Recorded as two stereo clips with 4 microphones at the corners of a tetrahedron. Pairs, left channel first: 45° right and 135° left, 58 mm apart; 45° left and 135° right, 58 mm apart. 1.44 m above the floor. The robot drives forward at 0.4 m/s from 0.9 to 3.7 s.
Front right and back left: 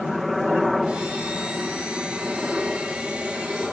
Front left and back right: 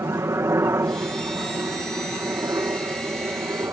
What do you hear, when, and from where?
0.0 s a helicopter: 135° right; by 3.7 s 140° right